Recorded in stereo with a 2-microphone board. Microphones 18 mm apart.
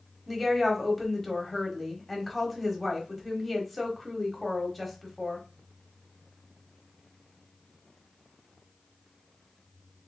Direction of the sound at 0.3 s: 5° left (ahead or behind).